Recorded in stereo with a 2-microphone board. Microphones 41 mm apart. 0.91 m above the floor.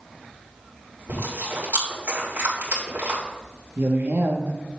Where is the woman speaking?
65° right (ahead or behind), 1.5 m.